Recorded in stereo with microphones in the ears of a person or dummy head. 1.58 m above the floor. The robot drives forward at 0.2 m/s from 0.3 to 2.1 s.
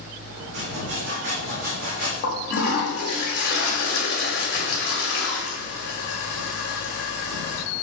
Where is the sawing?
60° right (ahead or behind), 0.9 m; by 2.1 s 50° right (ahead or behind), 1.1 m.